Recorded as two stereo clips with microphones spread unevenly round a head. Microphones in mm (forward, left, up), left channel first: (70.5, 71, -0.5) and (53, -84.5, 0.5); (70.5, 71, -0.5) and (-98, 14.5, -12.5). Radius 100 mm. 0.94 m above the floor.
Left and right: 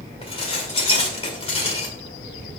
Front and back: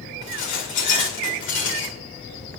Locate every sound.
0.2 s dishes clattering: 30° left, 2 m